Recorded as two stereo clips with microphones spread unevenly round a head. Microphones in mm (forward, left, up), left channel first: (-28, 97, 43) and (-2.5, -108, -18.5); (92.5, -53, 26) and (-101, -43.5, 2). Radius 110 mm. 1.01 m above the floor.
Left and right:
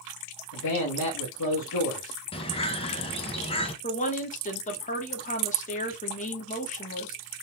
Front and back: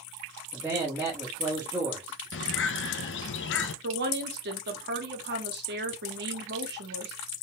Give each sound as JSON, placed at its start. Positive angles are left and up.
{"t": 0.5, "sound": "a man speaking", "azimuth_deg": 95, "distance_m": 1.3}
{"t": 2.3, "sound": "a bird", "azimuth_deg": 25, "distance_m": 0.6}
{"t": 3.8, "sound": "a woman speaking", "azimuth_deg": 155, "distance_m": 1.2}